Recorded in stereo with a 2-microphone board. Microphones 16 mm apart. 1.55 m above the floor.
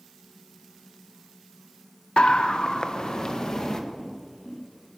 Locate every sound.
2.2 s a scream: 75° left (ahead or behind), 0.8 m; by 3.8 s 40° left (ahead or behind), 2.5 m
4.0 s footsteps: 35° left (ahead or behind), 8.5 m